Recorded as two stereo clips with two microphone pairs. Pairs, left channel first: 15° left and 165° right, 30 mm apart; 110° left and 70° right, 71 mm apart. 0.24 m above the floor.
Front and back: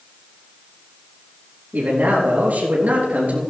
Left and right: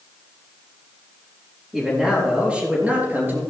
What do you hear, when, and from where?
1.7 s a man speaking: 155° right, 4.5 m; by 3.4 s 135° right, 4 m